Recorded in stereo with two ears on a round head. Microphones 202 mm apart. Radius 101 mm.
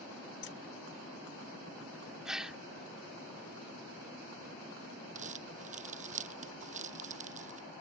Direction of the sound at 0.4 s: 55° left (ahead or behind).